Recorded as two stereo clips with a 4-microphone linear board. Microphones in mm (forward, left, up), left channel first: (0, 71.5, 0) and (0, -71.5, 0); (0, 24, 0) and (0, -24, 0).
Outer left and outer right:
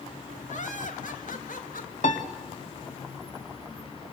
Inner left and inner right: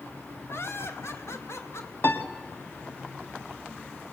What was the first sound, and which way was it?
Laughter, 60° left (ahead or behind).